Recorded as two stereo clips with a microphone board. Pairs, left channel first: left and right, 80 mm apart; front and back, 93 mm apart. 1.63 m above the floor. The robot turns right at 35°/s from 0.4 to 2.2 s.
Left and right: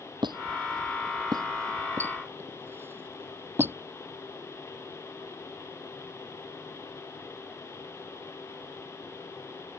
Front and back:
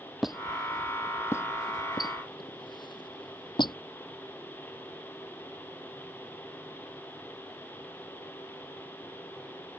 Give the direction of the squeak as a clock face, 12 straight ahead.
3 o'clock.